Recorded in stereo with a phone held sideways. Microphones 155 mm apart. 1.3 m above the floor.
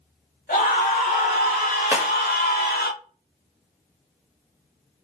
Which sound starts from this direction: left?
A scream, at 0.5 s.